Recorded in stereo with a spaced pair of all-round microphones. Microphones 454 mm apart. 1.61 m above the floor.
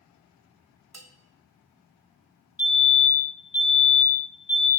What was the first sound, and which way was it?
A bell, 40° right (ahead or behind).